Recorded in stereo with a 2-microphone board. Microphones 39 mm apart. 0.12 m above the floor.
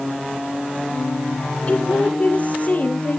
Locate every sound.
1.7 s a woman speaking: 30° left (ahead or behind), 3 m; by 3.2 s 45° left (ahead or behind), 2.5 m